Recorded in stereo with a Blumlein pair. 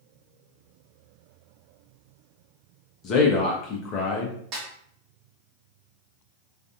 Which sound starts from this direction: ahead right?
A snare drum, at 4.5 s.